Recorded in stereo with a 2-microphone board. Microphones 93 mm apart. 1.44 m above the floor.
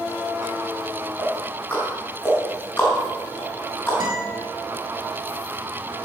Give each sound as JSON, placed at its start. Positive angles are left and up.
{"t": 1.2, "sound": "ticking", "side_deg": 15, "distance_m": 5.0}
{"t": 4.0, "sound": "a guitar", "side_deg": -60, "distance_m": 6.0}